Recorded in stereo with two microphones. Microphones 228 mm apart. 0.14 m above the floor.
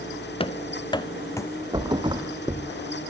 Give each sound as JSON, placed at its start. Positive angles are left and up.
{"t": 0.4, "sound": "running footsteps", "side_deg": 25, "distance_m": 1.1}
{"t": 1.7, "sound": "a thud", "side_deg": -20, "distance_m": 1.7}